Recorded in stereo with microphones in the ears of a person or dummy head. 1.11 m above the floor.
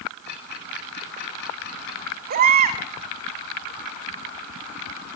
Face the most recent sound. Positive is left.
turn(degrees=-45)  # may be behind; listen again after turning